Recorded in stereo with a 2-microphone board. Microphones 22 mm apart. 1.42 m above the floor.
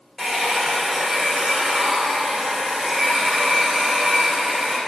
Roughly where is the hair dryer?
Centre.